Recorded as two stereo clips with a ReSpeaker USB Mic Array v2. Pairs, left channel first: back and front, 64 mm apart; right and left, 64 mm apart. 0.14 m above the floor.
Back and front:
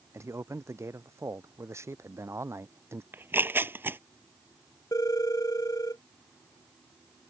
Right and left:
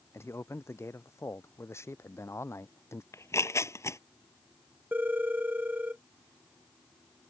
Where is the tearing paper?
55° right.